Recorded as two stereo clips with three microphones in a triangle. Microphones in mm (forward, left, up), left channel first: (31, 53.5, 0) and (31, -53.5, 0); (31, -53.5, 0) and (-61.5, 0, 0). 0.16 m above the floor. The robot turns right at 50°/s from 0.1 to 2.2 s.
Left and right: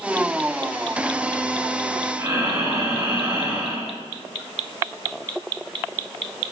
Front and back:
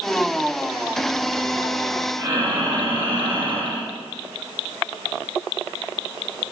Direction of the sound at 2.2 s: 155° right.